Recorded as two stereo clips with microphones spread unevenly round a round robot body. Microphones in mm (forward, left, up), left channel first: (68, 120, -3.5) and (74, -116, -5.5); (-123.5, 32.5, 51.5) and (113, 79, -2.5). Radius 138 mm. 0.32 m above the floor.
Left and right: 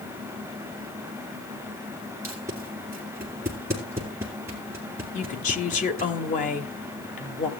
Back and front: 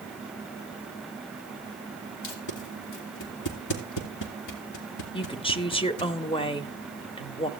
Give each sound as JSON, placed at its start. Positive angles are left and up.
{"t": 2.2, "sound": "tape being pulled", "azimuth_deg": -170, "distance_m": 2.5}
{"t": 5.1, "sound": "a woman speaking", "azimuth_deg": 120, "distance_m": 1.0}